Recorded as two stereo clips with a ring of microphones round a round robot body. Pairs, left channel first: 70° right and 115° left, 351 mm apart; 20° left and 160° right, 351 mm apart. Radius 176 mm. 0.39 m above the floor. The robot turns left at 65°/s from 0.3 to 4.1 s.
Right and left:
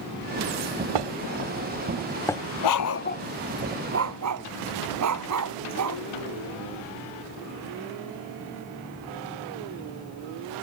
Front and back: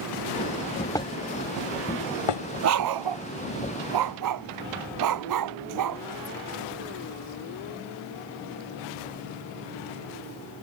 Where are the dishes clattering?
105° left; by 2.4 s 5° left.